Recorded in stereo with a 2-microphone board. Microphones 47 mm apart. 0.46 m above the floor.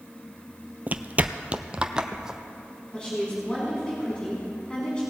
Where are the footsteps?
35° right (ahead or behind), 0.5 m; by 2.4 s 10° right (ahead or behind), 1.0 m.